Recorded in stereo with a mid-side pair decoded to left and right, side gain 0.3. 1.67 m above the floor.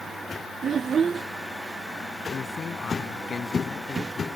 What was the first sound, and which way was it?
A child speaking, 65° right.